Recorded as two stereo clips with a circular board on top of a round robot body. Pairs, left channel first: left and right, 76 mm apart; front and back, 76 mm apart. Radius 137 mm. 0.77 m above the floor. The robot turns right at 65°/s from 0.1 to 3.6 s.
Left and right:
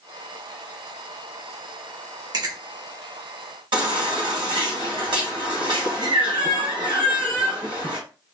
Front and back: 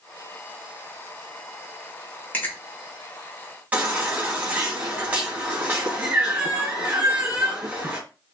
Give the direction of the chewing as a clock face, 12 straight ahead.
2 o'clock.